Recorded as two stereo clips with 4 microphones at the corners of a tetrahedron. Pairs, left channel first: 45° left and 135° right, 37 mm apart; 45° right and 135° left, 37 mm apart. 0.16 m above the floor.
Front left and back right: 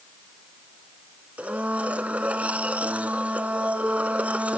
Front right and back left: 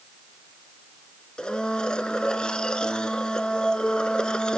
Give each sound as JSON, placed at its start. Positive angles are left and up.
{"t": 1.4, "sound": "a blender", "azimuth_deg": -105, "distance_m": 0.9}